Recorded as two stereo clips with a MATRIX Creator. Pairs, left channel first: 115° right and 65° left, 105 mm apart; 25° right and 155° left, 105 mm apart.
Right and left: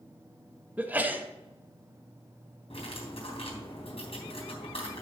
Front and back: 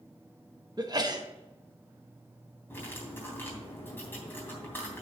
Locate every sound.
0.8 s a sneeze: 135° left, 1.2 m
2.7 s cutlery clinking: 95° right, 3.5 m